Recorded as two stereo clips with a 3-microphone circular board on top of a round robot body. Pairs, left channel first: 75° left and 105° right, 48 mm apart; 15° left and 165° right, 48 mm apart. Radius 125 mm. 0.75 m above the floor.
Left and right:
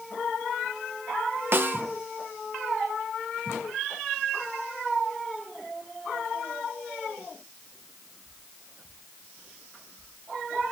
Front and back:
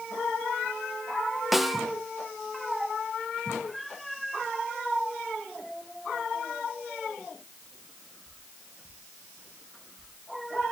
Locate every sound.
1.5 s a snare drum: 75° right, 0.9 m